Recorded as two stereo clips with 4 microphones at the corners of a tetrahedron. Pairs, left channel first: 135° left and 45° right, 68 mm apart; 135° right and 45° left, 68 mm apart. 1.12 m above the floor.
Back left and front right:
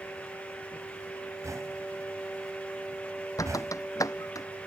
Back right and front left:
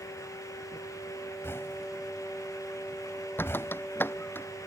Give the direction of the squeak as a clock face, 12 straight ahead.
6 o'clock.